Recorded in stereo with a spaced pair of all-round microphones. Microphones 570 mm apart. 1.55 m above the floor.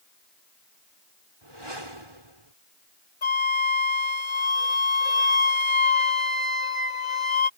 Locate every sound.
1.4 s a whoosh: 55° right (ahead or behind)
3.2 s a flute: 60° left (ahead or behind)